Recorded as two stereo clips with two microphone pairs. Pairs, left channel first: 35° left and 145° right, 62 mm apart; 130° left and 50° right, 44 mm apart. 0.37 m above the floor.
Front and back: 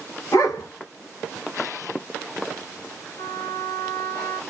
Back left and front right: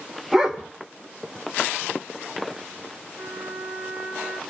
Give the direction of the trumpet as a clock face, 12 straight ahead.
11 o'clock.